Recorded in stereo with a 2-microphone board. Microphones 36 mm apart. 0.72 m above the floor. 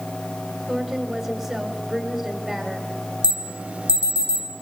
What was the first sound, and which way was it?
A woman speaking, 5° right (ahead or behind).